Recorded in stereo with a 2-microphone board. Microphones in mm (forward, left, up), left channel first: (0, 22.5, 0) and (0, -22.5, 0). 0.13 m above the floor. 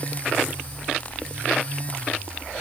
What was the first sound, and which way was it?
Only background noise.